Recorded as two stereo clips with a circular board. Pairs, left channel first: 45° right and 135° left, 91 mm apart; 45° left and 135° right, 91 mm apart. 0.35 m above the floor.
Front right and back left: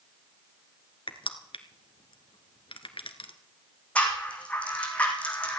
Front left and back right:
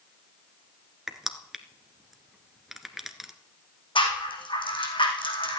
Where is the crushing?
50° right, 1.4 m.